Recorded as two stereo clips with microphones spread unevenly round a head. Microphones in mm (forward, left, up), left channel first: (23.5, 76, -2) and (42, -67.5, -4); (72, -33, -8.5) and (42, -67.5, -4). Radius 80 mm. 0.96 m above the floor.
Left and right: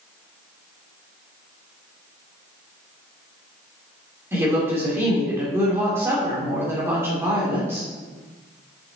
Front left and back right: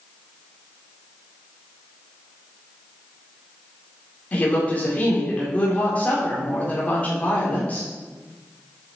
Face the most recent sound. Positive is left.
turn(degrees=-10)